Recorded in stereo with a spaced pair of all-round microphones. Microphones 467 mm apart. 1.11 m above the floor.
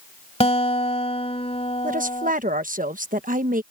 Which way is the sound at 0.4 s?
15° left (ahead or behind).